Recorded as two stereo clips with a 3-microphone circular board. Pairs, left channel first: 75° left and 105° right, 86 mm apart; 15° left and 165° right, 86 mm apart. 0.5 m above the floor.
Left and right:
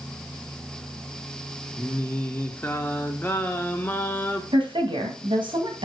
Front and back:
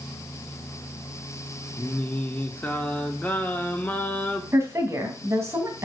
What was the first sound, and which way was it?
Singing, 50° left.